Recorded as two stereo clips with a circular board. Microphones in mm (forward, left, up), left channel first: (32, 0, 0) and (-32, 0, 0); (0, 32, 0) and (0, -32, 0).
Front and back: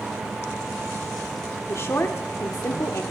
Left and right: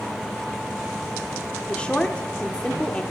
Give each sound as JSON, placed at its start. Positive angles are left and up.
{"t": 1.7, "sound": "a woman speaking", "azimuth_deg": 25, "distance_m": 1.2}